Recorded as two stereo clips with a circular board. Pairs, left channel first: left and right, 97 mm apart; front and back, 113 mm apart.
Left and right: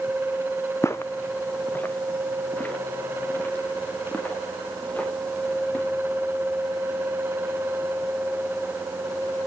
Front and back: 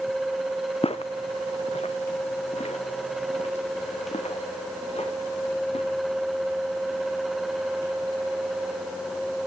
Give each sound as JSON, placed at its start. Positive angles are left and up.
{"t": 0.8, "sound": "footsteps", "azimuth_deg": 30, "distance_m": 0.7}